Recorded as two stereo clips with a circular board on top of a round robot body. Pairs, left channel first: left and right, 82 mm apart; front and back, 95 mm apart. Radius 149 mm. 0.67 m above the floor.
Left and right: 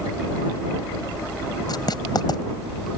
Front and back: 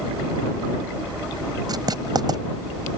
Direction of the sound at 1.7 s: 130° left.